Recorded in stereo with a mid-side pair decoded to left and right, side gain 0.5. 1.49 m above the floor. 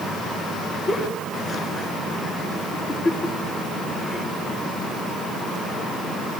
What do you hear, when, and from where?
0.9 s a giggle: 25° left, 7 m